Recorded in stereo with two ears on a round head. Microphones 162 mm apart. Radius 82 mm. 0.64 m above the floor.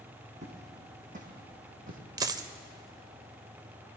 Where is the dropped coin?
20° right (ahead or behind), 0.5 m.